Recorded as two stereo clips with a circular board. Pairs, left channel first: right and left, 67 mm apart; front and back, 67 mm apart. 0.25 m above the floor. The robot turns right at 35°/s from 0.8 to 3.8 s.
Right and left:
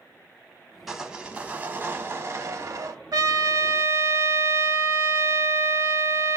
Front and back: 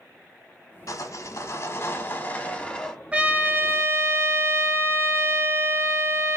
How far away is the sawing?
About 0.8 m.